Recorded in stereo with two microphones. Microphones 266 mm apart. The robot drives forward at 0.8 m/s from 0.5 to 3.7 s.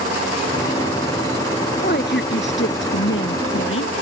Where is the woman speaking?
40° left (ahead or behind); by 3.9 s 50° left (ahead or behind).